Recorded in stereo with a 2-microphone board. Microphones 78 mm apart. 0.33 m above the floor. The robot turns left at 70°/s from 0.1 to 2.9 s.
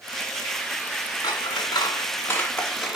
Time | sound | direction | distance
1.2 | scissors | 70° left (ahead or behind) | 1.3 m